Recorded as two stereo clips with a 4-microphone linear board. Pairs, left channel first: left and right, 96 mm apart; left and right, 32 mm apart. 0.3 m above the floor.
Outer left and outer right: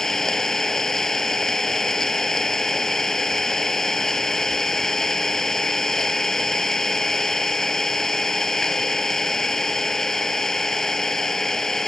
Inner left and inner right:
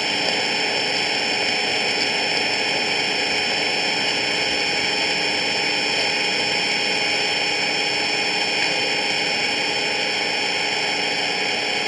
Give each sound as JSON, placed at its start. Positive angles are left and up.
{"t": 0.0, "sound": "an engine running", "side_deg": 5}